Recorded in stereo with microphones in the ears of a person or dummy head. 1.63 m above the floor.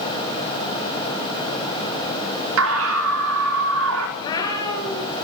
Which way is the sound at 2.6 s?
75° right (ahead or behind).